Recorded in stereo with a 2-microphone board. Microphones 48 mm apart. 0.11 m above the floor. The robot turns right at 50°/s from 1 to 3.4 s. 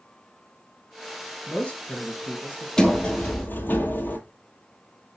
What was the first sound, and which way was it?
A man speaking, 30° left.